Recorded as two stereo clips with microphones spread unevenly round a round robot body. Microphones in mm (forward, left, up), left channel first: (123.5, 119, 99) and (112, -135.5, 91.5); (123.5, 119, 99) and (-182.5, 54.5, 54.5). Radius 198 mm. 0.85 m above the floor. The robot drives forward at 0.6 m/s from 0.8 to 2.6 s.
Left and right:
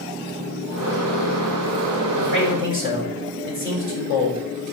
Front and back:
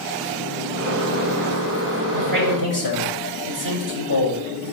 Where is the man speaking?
155° right, 5.5 m.